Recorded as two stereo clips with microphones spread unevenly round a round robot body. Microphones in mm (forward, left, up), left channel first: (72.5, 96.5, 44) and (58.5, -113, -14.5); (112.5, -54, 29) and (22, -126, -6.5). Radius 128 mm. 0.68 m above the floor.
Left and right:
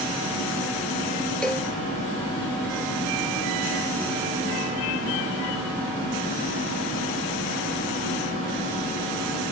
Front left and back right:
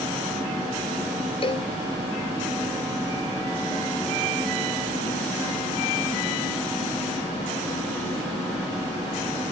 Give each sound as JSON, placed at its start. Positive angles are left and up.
{"t": 1.4, "sound": "a cowbell", "azimuth_deg": 0}